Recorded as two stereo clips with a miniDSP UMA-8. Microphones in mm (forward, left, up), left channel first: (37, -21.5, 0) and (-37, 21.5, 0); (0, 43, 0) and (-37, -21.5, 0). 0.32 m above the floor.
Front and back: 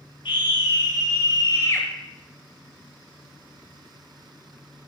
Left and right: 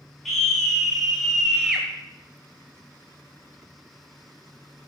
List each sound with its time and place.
0.2 s a scream: 25° right, 2 m; by 1.9 s 45° right, 1.0 m